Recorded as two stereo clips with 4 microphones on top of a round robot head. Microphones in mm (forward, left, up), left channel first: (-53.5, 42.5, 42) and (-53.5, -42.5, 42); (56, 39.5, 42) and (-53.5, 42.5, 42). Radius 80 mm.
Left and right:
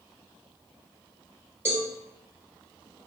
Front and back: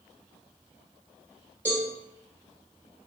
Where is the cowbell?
120° right, 1.0 m.